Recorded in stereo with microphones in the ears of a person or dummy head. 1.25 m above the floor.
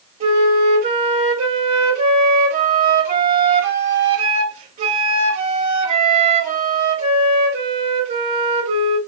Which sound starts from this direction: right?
A flute, at 0.2 s.